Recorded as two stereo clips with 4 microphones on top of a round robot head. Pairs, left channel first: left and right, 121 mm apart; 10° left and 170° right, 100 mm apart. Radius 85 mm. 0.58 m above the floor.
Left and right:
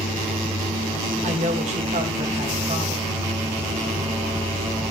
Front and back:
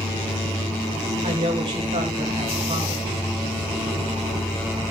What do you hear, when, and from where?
0.0 s an insect: 20° right, 4 m
1.2 s a woman speaking: 125° right, 3.5 m